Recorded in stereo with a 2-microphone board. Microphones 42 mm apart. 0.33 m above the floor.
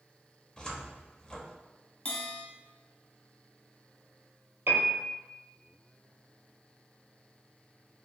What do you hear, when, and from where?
0.6 s a cupboard door: 20° left (ahead or behind), 0.7 m
2.0 s a bell: 40° left (ahead or behind), 1.3 m
4.7 s a piano: 65° right (ahead or behind), 1.5 m